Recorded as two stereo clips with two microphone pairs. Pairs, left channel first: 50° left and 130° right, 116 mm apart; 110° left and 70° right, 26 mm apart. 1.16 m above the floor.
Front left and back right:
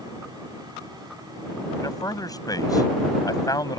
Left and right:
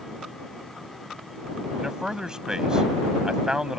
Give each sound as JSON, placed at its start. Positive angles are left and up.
{"t": 1.8, "sound": "a man speaking", "azimuth_deg": -5}